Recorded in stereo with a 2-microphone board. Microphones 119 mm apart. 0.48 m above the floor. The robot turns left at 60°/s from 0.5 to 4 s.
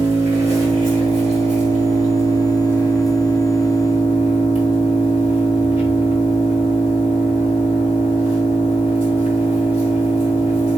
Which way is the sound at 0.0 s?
25° right.